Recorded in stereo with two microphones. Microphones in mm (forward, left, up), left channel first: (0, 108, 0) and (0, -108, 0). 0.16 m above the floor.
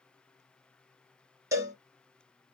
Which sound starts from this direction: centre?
A cowbell, at 1.5 s.